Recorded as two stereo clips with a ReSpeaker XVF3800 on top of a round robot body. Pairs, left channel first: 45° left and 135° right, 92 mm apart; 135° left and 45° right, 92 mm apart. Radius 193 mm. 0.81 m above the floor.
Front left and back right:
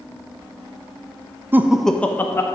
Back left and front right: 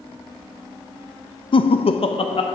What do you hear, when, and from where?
1.5 s laughter: 160° left, 0.6 m; by 2.5 s 105° left, 1.3 m